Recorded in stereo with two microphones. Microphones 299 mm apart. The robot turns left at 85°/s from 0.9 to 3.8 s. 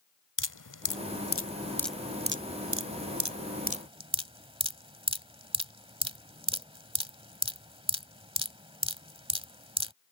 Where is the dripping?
75° left (ahead or behind); by 9.9 s 15° right (ahead or behind).